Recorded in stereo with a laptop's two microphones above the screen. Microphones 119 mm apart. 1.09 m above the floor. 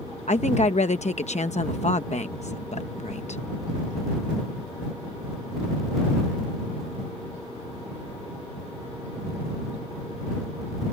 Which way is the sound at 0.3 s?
70° left (ahead or behind).